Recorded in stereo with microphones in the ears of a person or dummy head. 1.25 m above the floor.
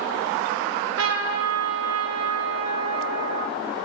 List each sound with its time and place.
0.6 s a trumpet: 80° right, 1.3 m